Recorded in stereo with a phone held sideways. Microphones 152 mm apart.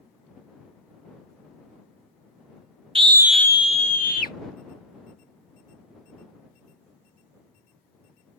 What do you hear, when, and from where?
3.0 s a scream: 35° right (ahead or behind); by 4.3 s 70° left (ahead or behind)